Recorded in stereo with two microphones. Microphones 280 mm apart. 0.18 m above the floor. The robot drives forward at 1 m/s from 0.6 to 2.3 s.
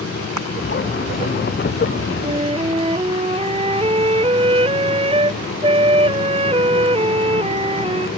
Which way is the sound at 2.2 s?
20° right (ahead or behind).